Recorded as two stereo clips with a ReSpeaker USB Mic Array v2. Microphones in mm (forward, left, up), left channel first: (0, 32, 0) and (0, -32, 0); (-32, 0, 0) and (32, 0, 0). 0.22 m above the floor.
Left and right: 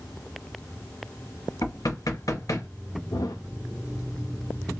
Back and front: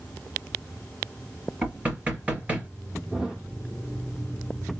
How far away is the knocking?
About 2.5 m.